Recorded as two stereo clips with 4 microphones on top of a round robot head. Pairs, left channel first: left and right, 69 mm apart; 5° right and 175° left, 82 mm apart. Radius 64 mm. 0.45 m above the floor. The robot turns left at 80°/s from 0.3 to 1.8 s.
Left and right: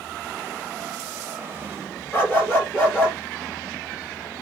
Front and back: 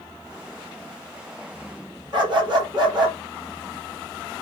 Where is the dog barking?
140° left, 3.5 m.